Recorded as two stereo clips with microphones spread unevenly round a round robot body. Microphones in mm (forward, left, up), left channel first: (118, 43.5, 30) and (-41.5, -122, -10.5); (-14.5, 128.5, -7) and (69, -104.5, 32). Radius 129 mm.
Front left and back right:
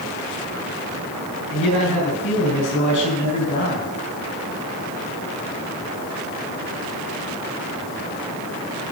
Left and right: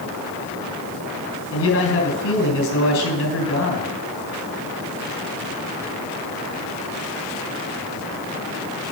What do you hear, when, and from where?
1.5 s a man speaking: 95° left, 4 m